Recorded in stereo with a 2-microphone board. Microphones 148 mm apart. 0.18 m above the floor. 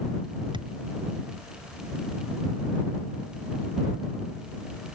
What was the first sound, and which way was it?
A thud, 30° right (ahead or behind).